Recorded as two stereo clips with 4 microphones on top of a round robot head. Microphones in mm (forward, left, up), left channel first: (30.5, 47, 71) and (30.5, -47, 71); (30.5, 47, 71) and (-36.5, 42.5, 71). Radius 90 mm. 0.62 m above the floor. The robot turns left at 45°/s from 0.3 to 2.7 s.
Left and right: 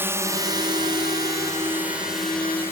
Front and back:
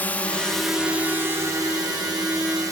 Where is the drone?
40° right; by 2.7 s 155° left.